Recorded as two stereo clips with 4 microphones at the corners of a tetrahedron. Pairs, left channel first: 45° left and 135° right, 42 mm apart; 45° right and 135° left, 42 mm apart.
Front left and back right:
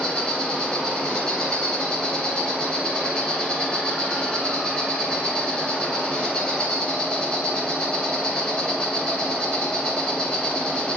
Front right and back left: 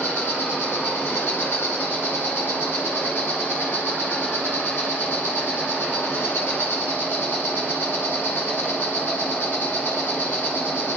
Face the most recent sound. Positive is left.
turn(degrees=-20)